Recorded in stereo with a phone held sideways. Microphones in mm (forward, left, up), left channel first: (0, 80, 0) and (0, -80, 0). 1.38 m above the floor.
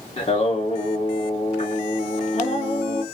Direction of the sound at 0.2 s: 40° left (ahead or behind).